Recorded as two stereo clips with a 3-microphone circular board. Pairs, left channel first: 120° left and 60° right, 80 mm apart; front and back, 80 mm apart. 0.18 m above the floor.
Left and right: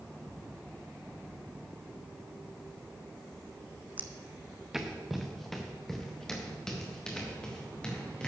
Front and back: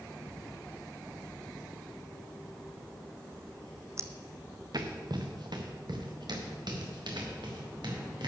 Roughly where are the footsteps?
Behind right.